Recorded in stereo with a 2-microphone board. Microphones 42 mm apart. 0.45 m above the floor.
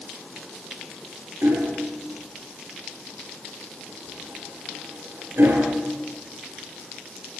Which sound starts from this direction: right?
Hammering, at 1.4 s.